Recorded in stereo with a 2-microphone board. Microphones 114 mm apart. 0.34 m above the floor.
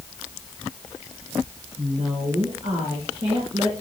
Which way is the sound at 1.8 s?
45° right (ahead or behind).